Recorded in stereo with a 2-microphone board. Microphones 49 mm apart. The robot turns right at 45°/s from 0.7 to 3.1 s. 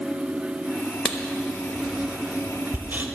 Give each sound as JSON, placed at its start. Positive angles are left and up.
{"t": 1.1, "sound": "writing", "side_deg": 15, "distance_m": 1.0}